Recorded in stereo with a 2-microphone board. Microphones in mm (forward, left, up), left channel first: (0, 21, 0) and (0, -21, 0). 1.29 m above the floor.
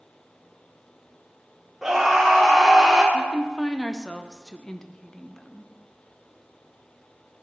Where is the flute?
No flute in this recording.